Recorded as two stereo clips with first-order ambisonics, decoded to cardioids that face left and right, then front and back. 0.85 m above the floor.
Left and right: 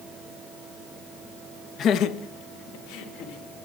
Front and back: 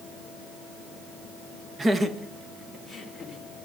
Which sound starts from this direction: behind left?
Laughter, at 1.8 s.